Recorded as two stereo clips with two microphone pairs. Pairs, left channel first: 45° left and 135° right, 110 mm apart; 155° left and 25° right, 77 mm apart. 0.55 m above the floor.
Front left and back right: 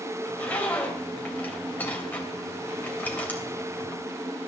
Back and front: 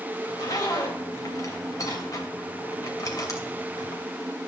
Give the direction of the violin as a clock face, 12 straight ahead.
I don't hear a violin.